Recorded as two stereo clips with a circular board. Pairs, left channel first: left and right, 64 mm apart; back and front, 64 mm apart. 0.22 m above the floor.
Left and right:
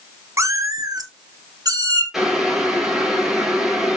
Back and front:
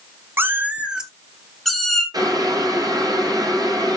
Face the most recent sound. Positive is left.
turn(degrees=-5)